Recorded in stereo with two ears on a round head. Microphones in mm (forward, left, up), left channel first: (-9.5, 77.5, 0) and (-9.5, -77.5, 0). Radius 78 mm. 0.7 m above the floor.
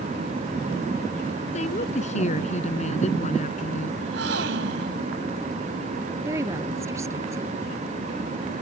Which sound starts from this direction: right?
A gasp, at 4.0 s.